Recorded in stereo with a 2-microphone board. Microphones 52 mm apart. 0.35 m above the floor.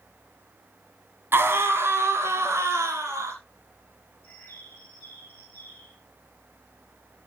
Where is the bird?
25° left (ahead or behind), 4.5 m.